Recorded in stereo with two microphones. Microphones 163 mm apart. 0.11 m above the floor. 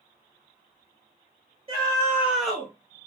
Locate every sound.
1.7 s a scream: 40° right (ahead or behind), 1.4 m; by 2.7 s 15° left (ahead or behind), 1.5 m